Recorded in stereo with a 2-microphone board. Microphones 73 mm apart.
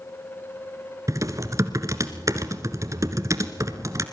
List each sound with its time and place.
1.1 s typing on a keyboard: 50° right (ahead or behind), 1.5 m